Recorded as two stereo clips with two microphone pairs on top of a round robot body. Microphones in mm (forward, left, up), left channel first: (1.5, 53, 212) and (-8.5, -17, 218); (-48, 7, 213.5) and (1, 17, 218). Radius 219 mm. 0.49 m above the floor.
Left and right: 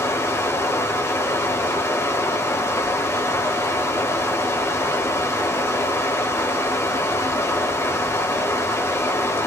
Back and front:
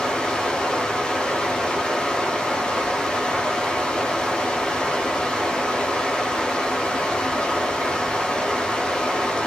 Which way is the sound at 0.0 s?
125° left.